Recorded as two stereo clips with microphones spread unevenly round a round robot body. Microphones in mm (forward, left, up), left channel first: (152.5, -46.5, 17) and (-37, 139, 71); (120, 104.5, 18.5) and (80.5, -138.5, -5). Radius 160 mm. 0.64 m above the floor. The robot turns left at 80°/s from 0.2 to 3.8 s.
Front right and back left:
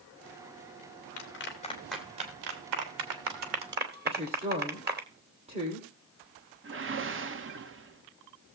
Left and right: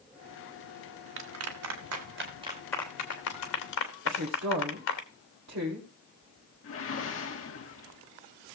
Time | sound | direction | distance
1.2 | a clap | 70° right | 2.5 m
4.0 | a woman speaking | 150° right | 2 m
6.6 | a whoosh | 95° left | 1.2 m